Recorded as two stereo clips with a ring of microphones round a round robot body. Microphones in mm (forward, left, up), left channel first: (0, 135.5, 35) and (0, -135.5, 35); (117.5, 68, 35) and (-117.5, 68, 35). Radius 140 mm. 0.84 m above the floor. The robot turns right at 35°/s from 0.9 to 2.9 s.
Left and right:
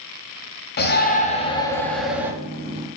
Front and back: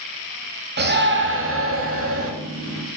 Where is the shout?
140° left, 2.0 m; by 2.3 s 170° right, 2.0 m.